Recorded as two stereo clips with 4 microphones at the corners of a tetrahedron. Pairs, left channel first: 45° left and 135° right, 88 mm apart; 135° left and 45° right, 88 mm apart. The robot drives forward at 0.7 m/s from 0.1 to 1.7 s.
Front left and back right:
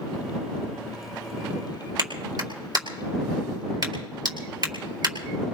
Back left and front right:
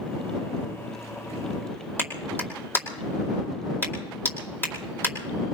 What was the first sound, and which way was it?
A clap, 165° right.